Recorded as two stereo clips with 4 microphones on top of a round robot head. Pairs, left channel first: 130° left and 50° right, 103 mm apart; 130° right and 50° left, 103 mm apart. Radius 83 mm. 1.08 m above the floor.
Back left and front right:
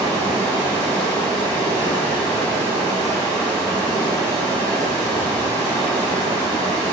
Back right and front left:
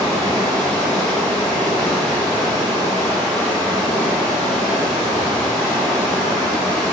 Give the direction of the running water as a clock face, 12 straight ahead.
7 o'clock.